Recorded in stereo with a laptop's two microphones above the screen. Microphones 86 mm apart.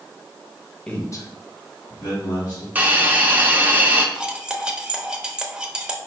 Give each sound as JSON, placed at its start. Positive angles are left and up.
{"t": 0.9, "sound": "a man speaking", "side_deg": 10, "distance_m": 1.0}
{"t": 2.8, "sound": "a hiss", "side_deg": -20, "distance_m": 0.6}
{"t": 4.2, "sound": "cutlery clinking", "side_deg": -10, "distance_m": 0.7}